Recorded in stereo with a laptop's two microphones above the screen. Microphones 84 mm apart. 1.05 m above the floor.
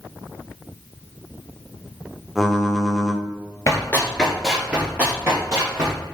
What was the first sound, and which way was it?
Typing on a keyboard, 5° right (ahead or behind).